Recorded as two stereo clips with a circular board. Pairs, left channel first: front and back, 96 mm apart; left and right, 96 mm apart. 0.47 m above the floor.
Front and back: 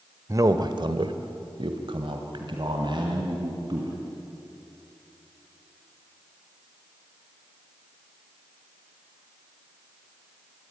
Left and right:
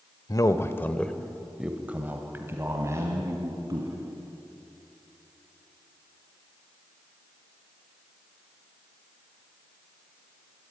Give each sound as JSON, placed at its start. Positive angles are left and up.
{"t": 0.3, "sound": "a man speaking", "azimuth_deg": 130, "distance_m": 1.3}